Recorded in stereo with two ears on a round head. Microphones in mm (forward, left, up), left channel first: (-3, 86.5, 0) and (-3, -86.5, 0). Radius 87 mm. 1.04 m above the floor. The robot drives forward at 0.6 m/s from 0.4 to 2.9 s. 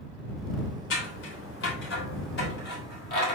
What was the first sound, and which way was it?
Scissors, 70° left (ahead or behind).